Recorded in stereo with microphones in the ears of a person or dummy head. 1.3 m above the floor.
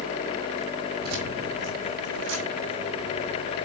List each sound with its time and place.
1.0 s keys jangling: 50° right (ahead or behind), 2.5 m; by 3.5 s 65° right (ahead or behind), 5 m